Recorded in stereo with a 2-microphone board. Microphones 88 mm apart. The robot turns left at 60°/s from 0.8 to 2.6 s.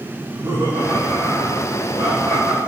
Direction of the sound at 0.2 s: 55° right.